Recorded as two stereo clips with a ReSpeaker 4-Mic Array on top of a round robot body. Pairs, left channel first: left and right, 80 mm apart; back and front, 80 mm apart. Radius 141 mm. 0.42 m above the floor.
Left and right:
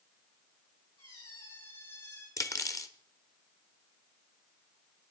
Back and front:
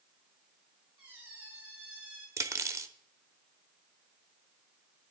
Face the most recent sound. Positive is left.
turn(degrees=50)